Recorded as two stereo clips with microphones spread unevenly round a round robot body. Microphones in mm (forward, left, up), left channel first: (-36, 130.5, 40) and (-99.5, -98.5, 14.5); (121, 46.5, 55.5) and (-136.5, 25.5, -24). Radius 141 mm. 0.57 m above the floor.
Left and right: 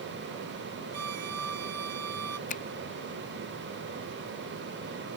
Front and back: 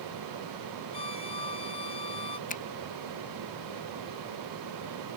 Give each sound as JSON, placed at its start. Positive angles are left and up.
{"t": 0.9, "sound": "a violin", "azimuth_deg": -65}
{"t": 2.5, "sound": "a finger snap", "azimuth_deg": 65}